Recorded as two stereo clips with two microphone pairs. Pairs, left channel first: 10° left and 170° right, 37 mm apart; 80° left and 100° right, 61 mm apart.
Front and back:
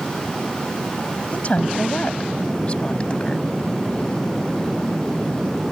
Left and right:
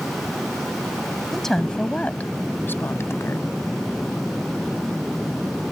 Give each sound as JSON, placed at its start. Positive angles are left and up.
{"t": 1.3, "sound": "a woman speaking", "azimuth_deg": -5}